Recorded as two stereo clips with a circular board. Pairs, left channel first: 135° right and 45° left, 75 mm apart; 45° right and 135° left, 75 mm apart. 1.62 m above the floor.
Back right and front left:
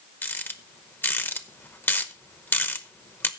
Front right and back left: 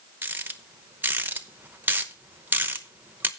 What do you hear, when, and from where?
0.2 s a rattle: 175° right, 0.8 m